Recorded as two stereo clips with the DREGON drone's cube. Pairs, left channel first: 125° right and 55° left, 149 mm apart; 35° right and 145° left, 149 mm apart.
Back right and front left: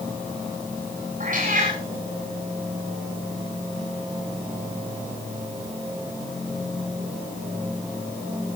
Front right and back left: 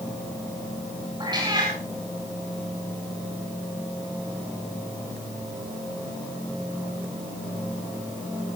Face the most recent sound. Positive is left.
turn(degrees=85)